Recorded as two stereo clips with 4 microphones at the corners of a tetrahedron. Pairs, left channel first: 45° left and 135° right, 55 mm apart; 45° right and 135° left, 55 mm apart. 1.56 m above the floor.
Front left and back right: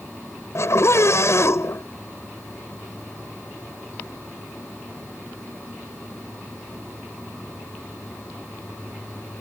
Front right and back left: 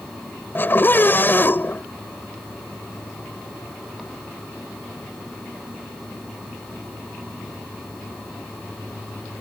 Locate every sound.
0.6 s a scream: 10° left